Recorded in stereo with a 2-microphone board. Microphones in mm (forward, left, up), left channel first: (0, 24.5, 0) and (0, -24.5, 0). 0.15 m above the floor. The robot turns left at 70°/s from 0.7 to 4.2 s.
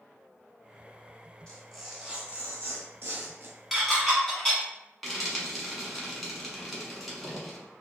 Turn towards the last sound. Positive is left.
turn(degrees=0)  # may be behind; listen again after turning